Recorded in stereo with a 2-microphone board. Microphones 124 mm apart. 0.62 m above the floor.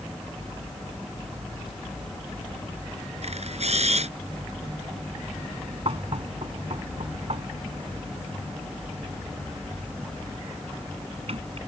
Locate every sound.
3.2 s a camera shutter: 60° right (ahead or behind)
5.8 s knocking: 55° right (ahead or behind)